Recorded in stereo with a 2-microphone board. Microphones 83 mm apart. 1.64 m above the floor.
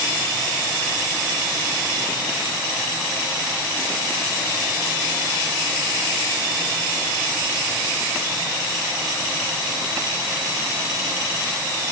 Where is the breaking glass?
No breaking glass in this recording.